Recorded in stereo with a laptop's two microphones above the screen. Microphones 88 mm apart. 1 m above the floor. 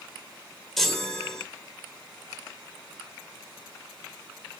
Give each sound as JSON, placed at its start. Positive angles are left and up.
{"t": 0.8, "sound": "a chime", "side_deg": 5, "distance_m": 1.0}